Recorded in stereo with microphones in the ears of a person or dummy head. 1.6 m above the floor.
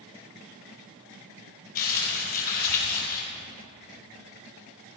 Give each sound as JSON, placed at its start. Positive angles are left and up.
{"t": 1.8, "sound": "crumpling", "side_deg": 45, "distance_m": 5.0}